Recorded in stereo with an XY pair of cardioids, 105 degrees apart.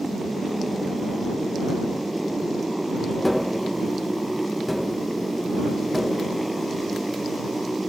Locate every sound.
0.0 s a motorcycle: 10° right
3.2 s tapping: 5° left